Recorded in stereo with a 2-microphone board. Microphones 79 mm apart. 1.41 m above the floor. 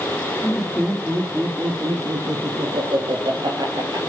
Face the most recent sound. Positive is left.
turn(degrees=-55)  # may be behind; listen again after turning